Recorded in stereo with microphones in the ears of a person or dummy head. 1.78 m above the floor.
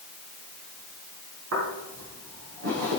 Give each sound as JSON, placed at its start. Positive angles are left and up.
{"t": 1.5, "sound": "footsteps", "side_deg": -70, "distance_m": 5.0}